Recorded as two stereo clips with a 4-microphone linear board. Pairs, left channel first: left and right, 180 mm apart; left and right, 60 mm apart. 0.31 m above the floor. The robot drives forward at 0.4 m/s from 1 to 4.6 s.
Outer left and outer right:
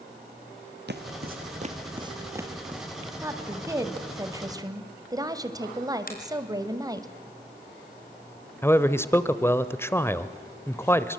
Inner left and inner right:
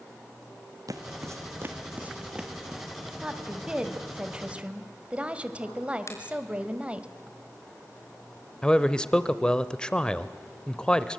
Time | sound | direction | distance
0.9 | footsteps | 70° right (ahead or behind) | 1.6 m
3.2 | a woman speaking | 15° right (ahead or behind) | 2.0 m
6.1 | a finger snap | 55° left (ahead or behind) | 4.5 m
8.6 | a man speaking | 15° left (ahead or behind) | 0.9 m